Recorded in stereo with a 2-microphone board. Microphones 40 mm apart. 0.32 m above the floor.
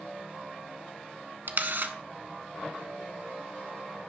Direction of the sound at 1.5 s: 60° right (ahead or behind).